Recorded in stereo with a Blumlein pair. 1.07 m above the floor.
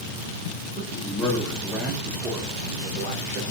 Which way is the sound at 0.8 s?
20° left.